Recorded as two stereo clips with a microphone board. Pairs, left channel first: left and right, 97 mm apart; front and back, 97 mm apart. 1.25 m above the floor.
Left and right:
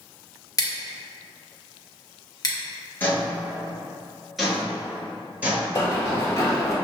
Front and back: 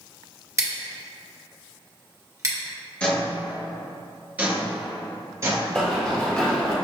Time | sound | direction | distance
0.6 | scissors | 130° left | 0.8 m
3.0 | footsteps | 60° left | 1.3 m
5.8 | running footsteps | 70° left | 1.4 m